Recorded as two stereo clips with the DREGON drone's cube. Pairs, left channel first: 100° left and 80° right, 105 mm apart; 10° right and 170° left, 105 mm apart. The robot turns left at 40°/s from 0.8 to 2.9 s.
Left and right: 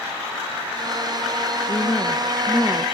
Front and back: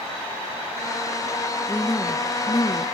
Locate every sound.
1.7 s a woman speaking: 60° left, 1.8 m; by 2.9 s 10° left, 1.8 m